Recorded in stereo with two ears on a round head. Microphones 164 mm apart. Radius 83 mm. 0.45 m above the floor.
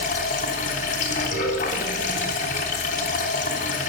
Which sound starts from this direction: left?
Running water, at 0.0 s.